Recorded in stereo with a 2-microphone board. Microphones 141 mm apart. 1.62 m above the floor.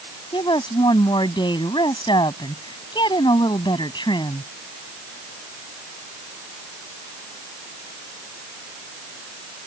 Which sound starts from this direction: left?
A woman speaking, at 0.3 s.